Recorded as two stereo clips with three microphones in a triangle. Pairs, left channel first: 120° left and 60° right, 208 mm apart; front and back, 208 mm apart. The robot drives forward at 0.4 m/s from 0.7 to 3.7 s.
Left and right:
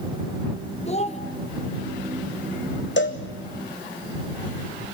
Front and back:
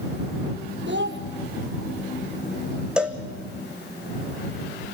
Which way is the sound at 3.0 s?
95° left.